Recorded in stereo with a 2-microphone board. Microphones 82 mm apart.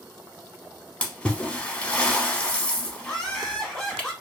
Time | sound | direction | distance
1.0 | a splash | 15° left (ahead or behind) | 0.8 m
3.0 | laughter | 5° left (ahead or behind) | 1.0 m